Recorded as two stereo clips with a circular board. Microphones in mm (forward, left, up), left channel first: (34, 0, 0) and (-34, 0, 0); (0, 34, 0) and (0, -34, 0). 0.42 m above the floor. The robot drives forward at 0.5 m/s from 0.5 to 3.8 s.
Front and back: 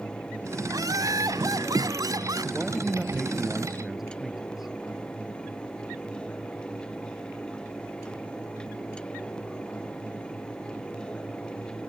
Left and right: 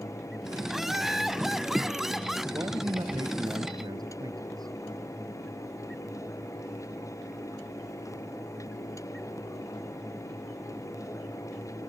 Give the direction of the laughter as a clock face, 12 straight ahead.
6 o'clock.